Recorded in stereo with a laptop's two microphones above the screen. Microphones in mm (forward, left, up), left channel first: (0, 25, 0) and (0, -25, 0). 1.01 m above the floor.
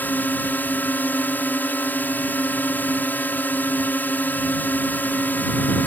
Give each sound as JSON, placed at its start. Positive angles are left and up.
{"t": 0.0, "sound": "a drone", "side_deg": 40}